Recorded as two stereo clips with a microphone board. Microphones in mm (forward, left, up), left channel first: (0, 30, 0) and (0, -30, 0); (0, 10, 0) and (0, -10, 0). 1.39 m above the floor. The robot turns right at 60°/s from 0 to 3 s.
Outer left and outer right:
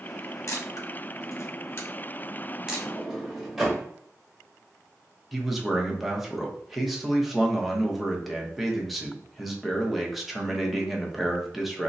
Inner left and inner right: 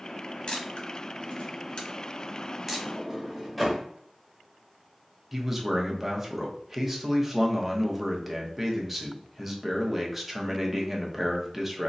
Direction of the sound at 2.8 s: 5° left (ahead or behind).